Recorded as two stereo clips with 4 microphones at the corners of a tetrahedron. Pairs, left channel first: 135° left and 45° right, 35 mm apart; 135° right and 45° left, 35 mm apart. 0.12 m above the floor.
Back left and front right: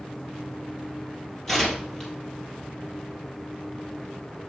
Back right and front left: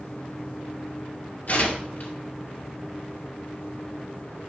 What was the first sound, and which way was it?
Tearing paper, 150° right.